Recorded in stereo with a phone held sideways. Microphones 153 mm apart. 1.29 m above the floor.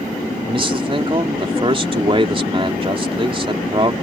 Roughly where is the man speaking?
Right.